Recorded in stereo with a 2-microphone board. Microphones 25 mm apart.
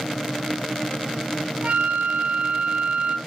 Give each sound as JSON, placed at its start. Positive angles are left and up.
{"t": 1.6, "sound": "a flute", "side_deg": -60, "distance_m": 0.5}